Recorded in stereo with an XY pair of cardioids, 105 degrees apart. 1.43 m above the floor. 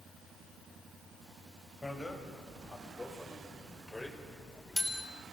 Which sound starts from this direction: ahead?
A bicycle bell, at 1.8 s.